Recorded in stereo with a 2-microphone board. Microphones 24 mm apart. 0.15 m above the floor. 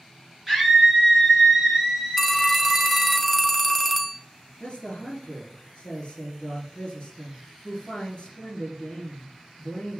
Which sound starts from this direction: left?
A man speaking, at 4.6 s.